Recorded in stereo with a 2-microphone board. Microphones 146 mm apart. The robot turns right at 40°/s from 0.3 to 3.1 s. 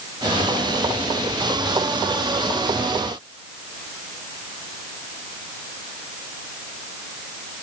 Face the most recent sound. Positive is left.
No sound to turn to.